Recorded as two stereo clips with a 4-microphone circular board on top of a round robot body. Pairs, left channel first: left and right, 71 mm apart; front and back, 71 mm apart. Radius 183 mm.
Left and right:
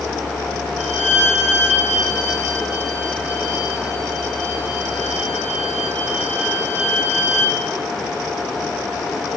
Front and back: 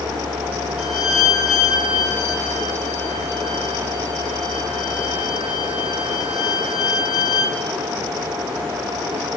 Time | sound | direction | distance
0.8 | a violin | 25° left | 5 m